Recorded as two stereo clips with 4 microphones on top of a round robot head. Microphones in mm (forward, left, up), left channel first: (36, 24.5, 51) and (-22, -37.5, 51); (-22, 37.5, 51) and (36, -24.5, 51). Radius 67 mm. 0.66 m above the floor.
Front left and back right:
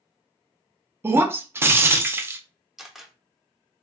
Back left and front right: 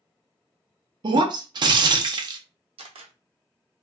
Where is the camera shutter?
45° right, 0.8 m.